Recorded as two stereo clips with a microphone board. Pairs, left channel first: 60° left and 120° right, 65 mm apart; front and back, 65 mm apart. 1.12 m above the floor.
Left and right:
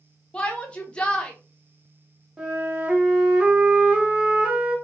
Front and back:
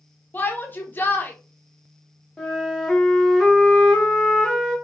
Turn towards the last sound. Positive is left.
turn(degrees=-65)